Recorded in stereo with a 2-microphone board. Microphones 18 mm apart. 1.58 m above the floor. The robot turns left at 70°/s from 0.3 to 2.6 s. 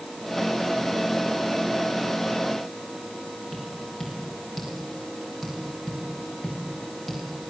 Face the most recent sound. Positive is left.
turn(degrees=0)  # may be behind; listen again after turning